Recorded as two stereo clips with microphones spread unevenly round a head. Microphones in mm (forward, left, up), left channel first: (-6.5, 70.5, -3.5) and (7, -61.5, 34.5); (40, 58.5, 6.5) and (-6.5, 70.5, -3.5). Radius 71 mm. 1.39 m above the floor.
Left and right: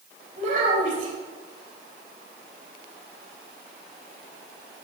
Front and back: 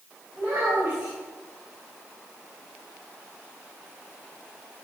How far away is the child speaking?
About 4.5 m.